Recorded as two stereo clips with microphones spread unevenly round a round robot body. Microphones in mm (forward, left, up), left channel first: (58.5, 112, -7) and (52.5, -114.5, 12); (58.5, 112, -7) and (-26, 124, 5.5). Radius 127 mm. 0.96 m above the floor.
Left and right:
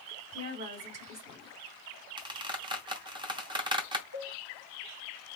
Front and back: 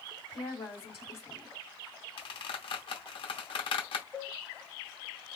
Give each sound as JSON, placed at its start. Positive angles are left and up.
{"t": 0.3, "sound": "a woman speaking", "azimuth_deg": -55, "distance_m": 1.8}
{"t": 2.2, "sound": "a squeak", "azimuth_deg": -25, "distance_m": 0.8}
{"t": 4.1, "sound": "a cowbell", "azimuth_deg": -110, "distance_m": 2.0}